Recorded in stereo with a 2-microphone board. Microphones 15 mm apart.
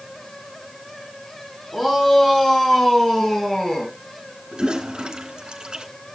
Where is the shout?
45° left (ahead or behind), 7.5 m; by 3.9 s 55° left (ahead or behind), 6 m.